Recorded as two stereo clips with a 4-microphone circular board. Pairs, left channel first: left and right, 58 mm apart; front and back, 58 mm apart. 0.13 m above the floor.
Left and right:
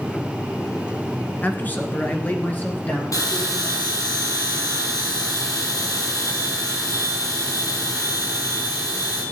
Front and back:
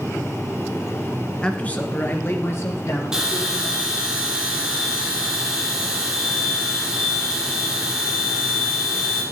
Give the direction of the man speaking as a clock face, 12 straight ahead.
10 o'clock.